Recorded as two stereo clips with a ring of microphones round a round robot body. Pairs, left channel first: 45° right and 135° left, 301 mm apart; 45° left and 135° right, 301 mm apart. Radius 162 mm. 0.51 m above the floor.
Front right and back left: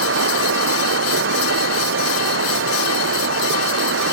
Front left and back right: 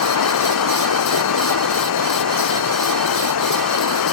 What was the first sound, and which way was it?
Running water, 85° left.